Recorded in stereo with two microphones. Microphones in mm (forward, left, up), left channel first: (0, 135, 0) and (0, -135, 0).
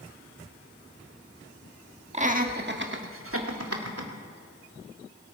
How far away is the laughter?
About 1.4 m.